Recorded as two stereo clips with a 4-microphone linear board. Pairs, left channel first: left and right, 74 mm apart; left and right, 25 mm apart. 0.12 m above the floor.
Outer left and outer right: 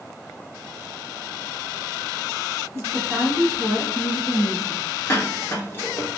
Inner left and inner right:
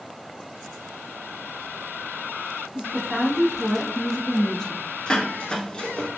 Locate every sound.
2.7 s a woman speaking: 40° right (ahead or behind), 1.4 m; by 4.9 s 5° right (ahead or behind), 1.5 m
5.1 s dishes clattering: 35° left (ahead or behind), 0.9 m